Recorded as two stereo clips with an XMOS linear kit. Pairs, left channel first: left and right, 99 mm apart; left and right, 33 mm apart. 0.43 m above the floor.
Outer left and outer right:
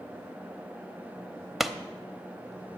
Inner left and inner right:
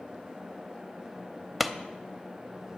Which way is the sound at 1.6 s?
Centre (ahead or behind).